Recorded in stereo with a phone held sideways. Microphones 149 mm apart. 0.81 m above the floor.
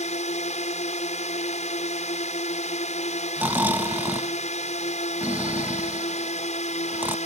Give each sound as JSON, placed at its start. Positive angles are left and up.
{"t": 0.0, "sound": "a drone", "side_deg": 55}
{"t": 3.4, "sound": "snoring", "side_deg": -10}